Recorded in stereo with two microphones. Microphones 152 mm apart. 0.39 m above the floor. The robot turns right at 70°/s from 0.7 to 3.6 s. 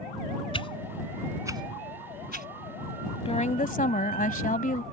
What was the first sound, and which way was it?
A whoosh, 35° left (ahead or behind).